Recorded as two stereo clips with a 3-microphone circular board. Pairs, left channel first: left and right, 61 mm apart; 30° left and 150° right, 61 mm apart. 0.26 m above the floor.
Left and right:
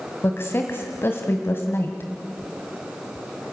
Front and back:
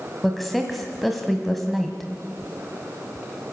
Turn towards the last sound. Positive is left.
turn(degrees=120)